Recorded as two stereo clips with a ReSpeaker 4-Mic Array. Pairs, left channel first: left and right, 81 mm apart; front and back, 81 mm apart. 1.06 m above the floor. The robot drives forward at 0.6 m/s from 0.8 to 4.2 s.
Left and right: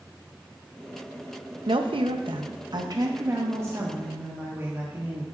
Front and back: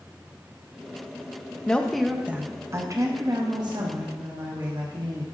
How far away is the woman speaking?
About 0.7 m.